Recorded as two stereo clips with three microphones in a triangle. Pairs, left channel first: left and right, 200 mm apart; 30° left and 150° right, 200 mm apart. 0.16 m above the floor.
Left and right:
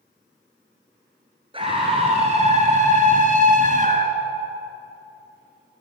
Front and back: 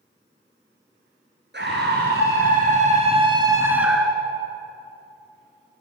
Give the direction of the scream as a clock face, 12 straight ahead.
5 o'clock.